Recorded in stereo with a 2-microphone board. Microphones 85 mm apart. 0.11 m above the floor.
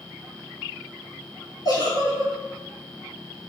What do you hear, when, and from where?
1.6 s a giggle: 50° left (ahead or behind), 0.9 m